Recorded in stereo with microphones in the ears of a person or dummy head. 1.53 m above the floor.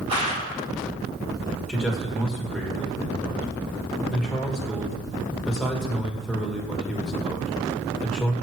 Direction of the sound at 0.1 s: 30° right (ahead or behind).